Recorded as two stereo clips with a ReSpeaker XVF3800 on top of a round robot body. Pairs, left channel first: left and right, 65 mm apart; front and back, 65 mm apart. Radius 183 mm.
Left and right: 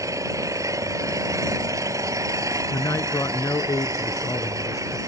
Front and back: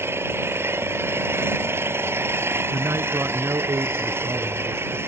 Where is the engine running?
125° right.